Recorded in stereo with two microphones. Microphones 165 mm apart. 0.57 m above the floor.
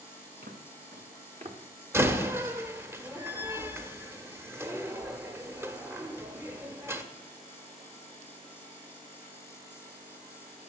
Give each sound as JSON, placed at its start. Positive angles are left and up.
{"t": 0.4, "sound": "footsteps", "side_deg": -75, "distance_m": 3.0}
{"t": 1.9, "sound": "a door slam", "side_deg": -15, "distance_m": 1.1}